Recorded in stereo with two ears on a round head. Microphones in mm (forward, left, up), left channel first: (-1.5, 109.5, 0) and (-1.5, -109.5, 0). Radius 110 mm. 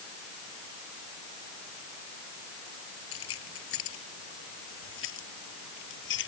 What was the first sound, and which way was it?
Keys jangling, 60° left (ahead or behind).